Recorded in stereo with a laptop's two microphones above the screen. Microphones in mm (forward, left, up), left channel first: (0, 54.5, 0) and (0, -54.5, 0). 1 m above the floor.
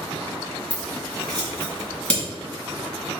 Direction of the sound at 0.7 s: 10° left (ahead or behind).